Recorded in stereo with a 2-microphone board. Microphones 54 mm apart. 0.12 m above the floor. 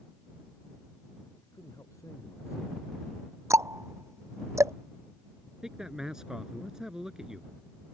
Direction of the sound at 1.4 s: 80° left.